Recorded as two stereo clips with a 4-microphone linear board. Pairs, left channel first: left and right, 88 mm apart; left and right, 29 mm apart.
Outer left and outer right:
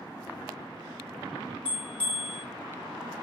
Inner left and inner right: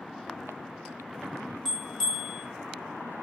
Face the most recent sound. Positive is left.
turn(degrees=10)  # may be behind; listen again after turning